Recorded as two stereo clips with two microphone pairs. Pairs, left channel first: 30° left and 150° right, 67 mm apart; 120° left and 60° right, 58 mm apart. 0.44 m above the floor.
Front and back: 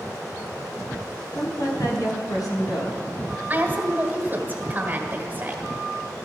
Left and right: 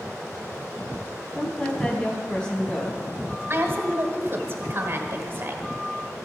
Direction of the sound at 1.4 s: 45° left.